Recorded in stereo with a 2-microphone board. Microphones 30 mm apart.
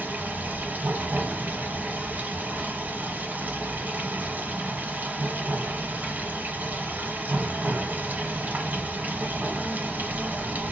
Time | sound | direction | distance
0.0 | running water | 85° right | 1.3 m